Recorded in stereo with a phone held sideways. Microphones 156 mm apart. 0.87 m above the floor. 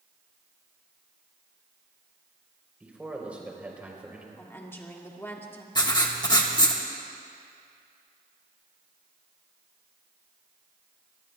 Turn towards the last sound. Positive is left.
turn(degrees=25)  # may be behind; listen again after turning